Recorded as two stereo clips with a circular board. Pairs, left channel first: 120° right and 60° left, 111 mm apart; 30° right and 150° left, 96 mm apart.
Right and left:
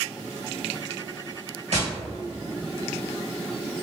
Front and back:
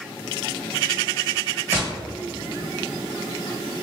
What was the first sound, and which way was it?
Tapping, 85° left.